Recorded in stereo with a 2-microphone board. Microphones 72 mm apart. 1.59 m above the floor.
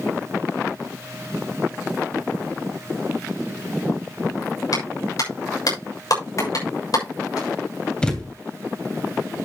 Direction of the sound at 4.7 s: 60° left (ahead or behind).